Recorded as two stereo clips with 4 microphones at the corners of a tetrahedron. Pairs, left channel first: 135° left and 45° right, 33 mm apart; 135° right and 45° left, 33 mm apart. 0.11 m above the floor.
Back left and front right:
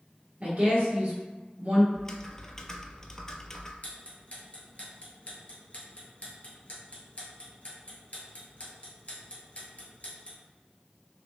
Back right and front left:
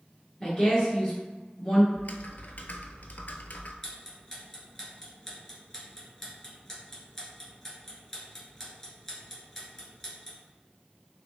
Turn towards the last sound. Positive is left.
turn(degrees=155)